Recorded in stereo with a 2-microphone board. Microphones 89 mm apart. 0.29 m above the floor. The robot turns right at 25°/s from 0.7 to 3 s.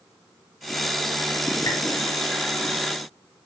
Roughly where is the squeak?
Left.